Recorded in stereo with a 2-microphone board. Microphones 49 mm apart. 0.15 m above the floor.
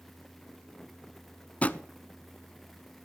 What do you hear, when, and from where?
1.6 s a drawer: 30° left (ahead or behind), 0.5 m